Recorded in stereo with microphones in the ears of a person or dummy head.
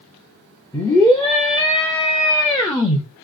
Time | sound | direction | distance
0.7 | a scream | 15° left (ahead or behind) | 0.7 m